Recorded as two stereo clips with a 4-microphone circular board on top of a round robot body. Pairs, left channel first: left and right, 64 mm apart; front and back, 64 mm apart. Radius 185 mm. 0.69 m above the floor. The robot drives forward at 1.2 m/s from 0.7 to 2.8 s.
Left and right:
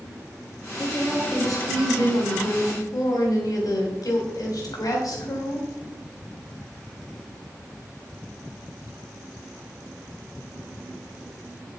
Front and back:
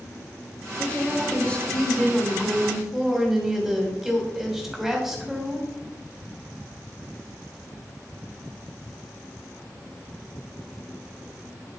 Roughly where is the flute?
No flute in this recording.